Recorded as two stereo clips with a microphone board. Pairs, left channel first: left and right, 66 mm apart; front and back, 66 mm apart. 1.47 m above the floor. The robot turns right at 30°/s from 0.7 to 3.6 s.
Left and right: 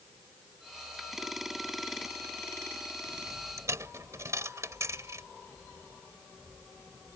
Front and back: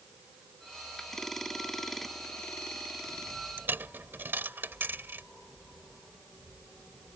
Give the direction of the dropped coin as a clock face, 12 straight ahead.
4 o'clock.